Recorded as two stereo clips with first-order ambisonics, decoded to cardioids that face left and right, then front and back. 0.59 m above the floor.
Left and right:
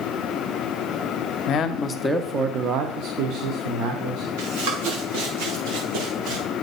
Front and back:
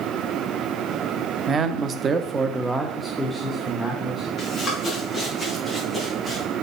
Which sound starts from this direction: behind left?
A man speaking, at 1.5 s.